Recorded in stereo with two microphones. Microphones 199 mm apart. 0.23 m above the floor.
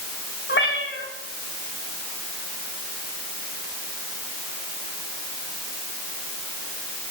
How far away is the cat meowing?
About 7.5 m.